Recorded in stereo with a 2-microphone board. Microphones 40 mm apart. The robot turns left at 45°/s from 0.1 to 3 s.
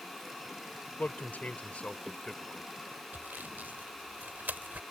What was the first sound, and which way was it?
A man speaking, 50° left (ahead or behind).